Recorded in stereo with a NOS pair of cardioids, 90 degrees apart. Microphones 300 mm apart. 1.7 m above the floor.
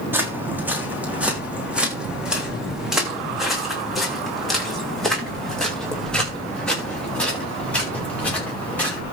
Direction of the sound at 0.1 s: 5° right.